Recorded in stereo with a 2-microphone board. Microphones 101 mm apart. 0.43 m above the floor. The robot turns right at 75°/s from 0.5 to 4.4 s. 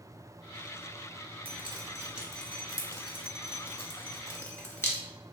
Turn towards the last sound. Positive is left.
turn(degrees=20)  # may be behind; listen again after turning